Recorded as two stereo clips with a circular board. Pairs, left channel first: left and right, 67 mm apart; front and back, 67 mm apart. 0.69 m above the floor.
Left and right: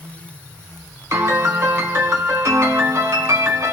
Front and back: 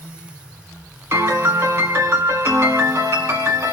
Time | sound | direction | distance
1.1 | a piano | 130° right | 1.4 m